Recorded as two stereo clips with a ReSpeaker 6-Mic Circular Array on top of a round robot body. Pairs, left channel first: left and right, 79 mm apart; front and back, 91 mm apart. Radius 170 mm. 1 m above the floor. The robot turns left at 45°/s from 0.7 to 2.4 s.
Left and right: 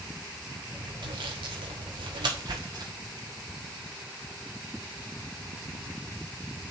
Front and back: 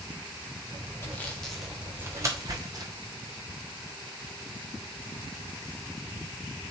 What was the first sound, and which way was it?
Sawing, 65° right.